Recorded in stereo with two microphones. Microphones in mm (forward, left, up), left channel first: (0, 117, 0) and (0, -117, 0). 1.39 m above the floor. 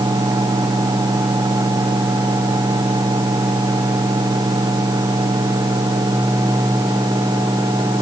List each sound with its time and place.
Only background noise.